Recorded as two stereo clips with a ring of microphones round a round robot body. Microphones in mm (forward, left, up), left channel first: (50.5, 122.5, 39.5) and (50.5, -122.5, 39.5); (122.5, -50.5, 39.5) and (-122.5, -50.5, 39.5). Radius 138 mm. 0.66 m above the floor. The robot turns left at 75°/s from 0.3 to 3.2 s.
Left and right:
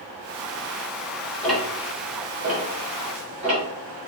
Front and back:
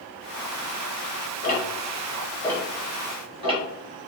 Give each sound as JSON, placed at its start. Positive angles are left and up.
{"t": 1.4, "sound": "ticking", "azimuth_deg": 5, "distance_m": 1.2}